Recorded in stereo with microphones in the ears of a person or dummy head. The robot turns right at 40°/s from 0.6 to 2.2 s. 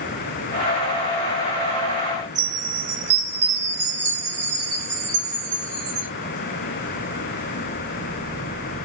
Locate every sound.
2.4 s a chime: 55° right (ahead or behind), 1.5 m